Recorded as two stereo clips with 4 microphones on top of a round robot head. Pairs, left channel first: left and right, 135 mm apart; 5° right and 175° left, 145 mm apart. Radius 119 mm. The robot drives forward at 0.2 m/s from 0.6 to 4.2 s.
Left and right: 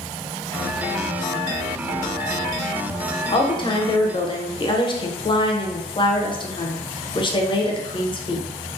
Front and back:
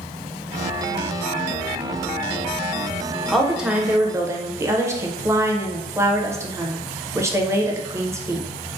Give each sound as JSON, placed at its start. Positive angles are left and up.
{"t": 3.3, "sound": "a woman speaking", "azimuth_deg": 85, "distance_m": 0.6}